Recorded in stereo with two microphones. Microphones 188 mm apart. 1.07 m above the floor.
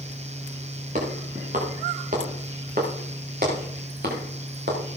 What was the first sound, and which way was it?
Footsteps, 45° right (ahead or behind).